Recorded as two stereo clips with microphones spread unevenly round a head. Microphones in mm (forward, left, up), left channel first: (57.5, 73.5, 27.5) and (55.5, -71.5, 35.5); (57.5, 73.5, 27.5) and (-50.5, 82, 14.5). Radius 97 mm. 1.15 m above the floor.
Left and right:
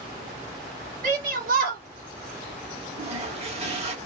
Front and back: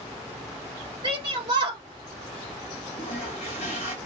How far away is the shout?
About 1.6 m.